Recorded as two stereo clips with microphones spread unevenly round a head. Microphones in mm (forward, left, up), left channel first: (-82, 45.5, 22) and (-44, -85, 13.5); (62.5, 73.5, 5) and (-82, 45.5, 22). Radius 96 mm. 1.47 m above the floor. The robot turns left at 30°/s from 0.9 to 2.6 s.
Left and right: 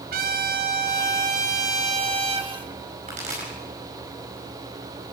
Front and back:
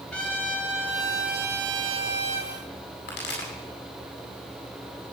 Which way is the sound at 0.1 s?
75° right.